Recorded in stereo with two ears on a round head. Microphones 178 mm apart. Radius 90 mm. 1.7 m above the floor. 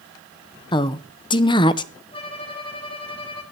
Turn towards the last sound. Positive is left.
turn(degrees=30)  # may be behind; listen again after turning